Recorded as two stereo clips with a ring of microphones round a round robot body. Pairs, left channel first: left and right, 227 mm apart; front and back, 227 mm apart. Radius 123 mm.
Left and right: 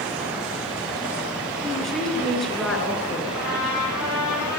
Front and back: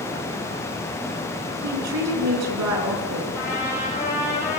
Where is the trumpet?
80° left, 9.5 m.